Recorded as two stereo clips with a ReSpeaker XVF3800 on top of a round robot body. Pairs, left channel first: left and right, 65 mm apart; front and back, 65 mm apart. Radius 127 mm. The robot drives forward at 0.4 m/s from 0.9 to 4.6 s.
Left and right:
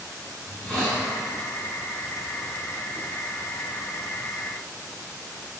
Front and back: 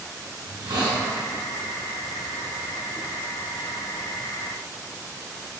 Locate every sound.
0.4 s a hiss: 175° left, 5.5 m